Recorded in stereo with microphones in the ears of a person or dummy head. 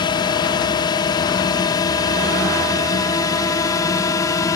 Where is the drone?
25° left (ahead or behind); by 4.6 s 20° left (ahead or behind).